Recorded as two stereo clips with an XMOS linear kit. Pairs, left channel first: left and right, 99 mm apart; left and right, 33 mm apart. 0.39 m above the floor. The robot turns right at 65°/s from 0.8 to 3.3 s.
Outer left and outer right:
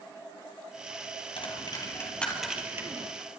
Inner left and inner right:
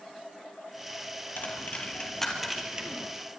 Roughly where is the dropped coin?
Left.